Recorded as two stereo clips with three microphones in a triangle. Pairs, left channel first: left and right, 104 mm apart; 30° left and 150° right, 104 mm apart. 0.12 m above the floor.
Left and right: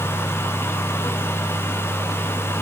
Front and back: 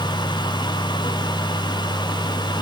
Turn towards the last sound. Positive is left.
No sound to turn to.